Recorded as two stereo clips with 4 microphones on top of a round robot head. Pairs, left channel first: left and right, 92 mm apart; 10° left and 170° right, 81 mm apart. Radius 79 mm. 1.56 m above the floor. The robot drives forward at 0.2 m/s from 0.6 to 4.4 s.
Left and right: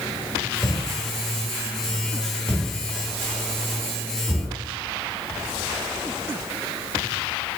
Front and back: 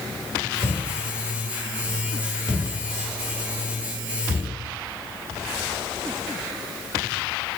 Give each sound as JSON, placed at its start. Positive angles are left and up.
{"t": 0.6, "sound": "a thud", "azimuth_deg": 155, "distance_m": 1.2}